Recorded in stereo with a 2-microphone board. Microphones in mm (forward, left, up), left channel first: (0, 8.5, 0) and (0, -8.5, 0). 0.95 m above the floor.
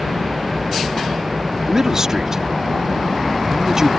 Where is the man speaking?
35° right (ahead or behind).